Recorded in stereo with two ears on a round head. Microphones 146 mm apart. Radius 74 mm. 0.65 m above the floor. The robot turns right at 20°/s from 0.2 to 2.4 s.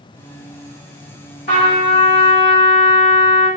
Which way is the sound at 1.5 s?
60° left (ahead or behind).